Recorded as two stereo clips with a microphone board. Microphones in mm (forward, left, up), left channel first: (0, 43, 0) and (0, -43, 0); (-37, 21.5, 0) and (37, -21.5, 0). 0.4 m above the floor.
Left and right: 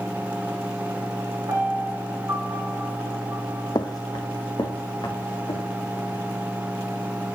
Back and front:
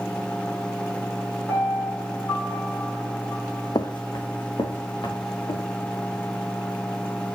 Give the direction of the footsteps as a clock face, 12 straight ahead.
8 o'clock.